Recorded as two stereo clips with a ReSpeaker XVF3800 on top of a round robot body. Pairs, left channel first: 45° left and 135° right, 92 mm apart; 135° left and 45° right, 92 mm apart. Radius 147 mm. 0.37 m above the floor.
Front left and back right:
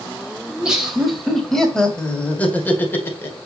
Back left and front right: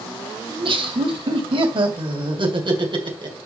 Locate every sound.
0.5 s laughter: 55° right, 2.5 m; by 3.4 s 15° right, 2.5 m